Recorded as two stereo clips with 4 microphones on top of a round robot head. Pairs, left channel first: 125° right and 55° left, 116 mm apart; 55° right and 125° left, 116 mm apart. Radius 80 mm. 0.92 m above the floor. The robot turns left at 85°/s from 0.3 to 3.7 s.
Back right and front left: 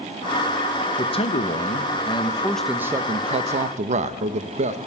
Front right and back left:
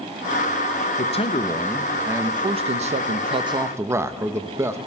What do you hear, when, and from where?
1.0 s a man speaking: 70° right, 0.7 m; by 4.8 s 55° left, 0.7 m